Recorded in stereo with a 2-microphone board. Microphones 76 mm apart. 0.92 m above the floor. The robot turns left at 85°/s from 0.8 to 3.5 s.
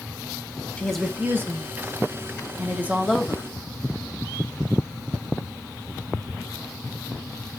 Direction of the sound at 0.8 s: 15° left.